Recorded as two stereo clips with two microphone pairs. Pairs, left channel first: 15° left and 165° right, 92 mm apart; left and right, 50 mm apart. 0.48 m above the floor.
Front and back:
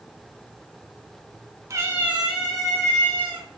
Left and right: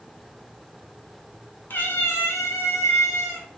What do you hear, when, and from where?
1.7 s a cat meowing: 140° left, 0.8 m; by 3.5 s 90° left, 2 m